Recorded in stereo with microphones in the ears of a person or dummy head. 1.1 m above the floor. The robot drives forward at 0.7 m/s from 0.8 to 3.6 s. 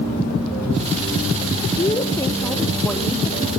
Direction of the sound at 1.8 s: 30° left (ahead or behind).